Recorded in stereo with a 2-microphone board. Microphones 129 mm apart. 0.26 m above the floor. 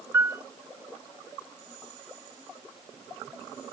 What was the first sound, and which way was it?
A piano, 20° right (ahead or behind).